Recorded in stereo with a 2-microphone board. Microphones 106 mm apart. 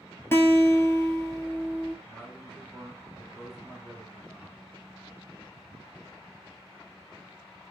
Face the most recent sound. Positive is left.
turn(degrees=-5)  # may be behind; listen again after turning